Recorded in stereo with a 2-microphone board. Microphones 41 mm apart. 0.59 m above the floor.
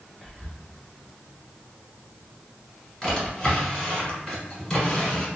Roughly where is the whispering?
Left.